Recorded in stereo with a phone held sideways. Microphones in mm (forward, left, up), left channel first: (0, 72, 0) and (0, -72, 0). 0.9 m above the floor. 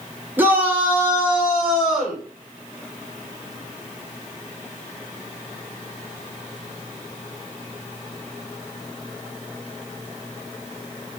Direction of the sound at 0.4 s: 15° right (ahead or behind).